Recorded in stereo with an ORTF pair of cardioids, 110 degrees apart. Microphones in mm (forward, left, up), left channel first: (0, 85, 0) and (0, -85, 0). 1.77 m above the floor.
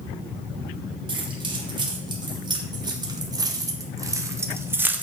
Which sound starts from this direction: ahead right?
Keys jangling, at 1.1 s.